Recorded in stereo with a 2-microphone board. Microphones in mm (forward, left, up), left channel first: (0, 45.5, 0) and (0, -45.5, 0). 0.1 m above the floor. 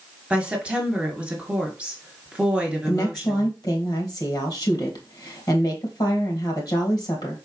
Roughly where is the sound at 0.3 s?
Centre.